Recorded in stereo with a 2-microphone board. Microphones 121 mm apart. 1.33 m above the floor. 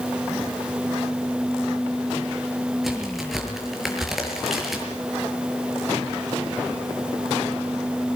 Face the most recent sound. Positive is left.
turn(degrees=0)  # may be behind; listen again after turning